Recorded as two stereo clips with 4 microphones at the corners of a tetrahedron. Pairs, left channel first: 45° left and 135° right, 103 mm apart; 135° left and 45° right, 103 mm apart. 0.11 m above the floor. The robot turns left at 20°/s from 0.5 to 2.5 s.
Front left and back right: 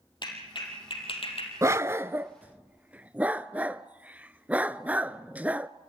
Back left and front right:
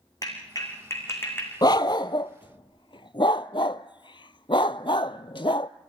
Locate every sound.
0.2 s a clap: 85° left, 4.5 m; by 1.5 s 65° left, 4.5 m
1.6 s a dog barking: 170° left, 0.5 m; by 5.7 s 150° left, 0.5 m